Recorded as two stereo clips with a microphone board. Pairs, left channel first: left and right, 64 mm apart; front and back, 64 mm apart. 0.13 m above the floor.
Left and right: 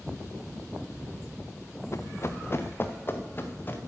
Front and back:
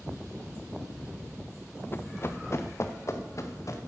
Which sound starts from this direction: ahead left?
Running footsteps, at 1.9 s.